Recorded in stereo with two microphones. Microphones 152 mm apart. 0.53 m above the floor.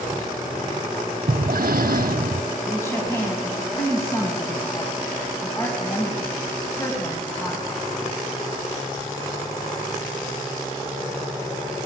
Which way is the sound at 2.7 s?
20° left (ahead or behind).